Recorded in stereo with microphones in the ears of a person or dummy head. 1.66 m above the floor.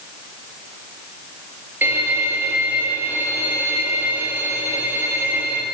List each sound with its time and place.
1.8 s a violin: 10° right (ahead or behind), 5.5 m